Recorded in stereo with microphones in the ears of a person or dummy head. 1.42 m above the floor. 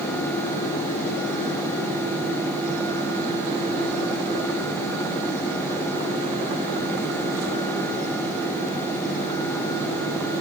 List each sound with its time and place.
Only background noise.